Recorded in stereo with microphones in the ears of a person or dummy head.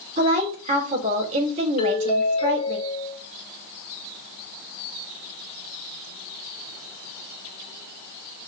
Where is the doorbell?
25° left (ahead or behind), 2 m.